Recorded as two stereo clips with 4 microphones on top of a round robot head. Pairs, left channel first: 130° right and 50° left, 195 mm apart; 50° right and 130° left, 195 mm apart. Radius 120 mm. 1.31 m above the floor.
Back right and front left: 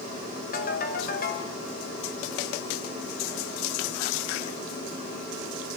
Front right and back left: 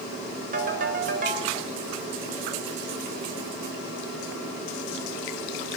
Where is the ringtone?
Straight behind, 4.5 m.